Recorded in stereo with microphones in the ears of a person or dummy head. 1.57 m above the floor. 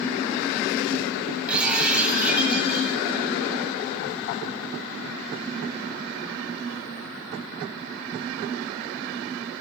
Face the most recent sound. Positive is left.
turn(degrees=0)  # may be behind; listen again after turning